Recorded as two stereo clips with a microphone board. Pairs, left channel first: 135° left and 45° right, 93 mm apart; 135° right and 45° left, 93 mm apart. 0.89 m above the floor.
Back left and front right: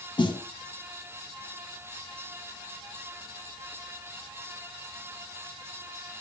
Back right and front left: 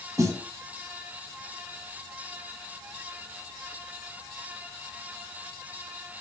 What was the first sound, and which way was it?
A snare drum, 100° left.